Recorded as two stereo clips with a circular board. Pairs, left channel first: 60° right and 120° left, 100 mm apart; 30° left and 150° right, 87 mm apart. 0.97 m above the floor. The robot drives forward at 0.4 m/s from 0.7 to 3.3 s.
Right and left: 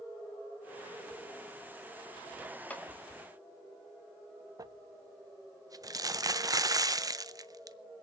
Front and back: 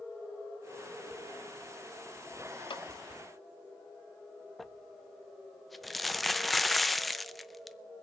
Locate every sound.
2.7 s a clap: 15° left, 1.3 m
4.6 s crumpling: 120° left, 0.5 m